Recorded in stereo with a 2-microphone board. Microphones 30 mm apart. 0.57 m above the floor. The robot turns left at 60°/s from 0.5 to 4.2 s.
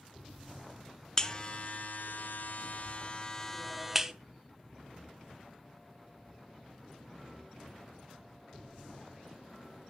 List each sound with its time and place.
1.2 s a buzzer: 25° left (ahead or behind), 0.5 m; by 4.1 s 20° right (ahead or behind), 0.5 m